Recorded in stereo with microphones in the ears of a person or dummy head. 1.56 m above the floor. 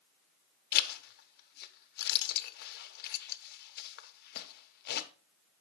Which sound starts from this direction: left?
A zipper, at 0.7 s.